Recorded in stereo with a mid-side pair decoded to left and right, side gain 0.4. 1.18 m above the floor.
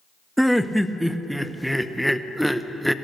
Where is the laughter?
5° right, 0.7 m.